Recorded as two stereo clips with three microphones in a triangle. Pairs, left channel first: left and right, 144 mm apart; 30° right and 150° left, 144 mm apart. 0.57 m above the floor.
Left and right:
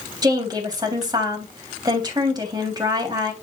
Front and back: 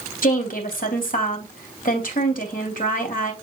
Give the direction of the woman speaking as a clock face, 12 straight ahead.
1 o'clock.